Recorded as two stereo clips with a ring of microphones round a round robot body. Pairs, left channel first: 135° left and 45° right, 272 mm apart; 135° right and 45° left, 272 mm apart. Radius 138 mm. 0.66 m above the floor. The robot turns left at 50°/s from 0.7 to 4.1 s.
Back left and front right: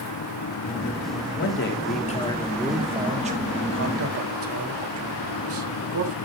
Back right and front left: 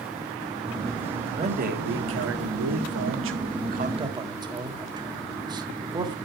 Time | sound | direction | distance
1.4 | a man speaking | 110° left | 1.7 m